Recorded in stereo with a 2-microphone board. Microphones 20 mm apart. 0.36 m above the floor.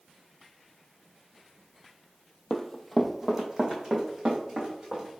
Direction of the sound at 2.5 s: 30° left (ahead or behind).